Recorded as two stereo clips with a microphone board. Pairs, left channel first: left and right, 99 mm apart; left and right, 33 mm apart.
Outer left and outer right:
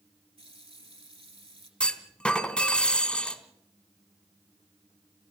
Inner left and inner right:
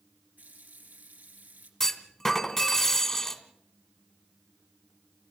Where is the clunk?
10° left (ahead or behind), 1.7 m.